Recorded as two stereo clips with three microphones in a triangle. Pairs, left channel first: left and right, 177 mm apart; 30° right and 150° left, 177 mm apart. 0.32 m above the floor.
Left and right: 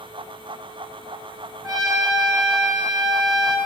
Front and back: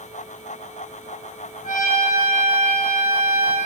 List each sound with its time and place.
1.6 s a trumpet: 25° right, 2 m